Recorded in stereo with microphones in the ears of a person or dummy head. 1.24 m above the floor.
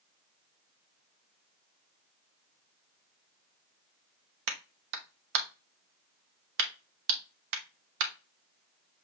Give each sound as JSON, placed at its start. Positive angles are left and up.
{"t": 4.5, "sound": "a clap", "side_deg": -65, "distance_m": 0.9}